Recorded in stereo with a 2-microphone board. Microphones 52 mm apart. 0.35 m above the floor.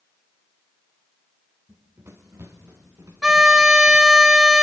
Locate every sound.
1.7 s running footsteps: 55° right (ahead or behind), 2.5 m; by 4.2 s 80° right, 3 m
3.2 s a violin: 10° right (ahead or behind), 0.6 m